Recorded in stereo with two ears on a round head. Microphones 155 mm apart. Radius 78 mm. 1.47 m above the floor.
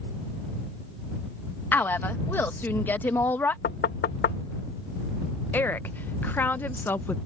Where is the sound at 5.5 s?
10° left (ahead or behind).